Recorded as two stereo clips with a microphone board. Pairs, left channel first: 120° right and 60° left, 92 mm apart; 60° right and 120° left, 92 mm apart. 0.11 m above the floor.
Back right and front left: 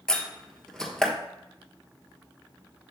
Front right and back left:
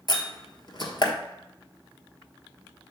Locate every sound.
0.1 s a door slam: 40° right, 1.3 m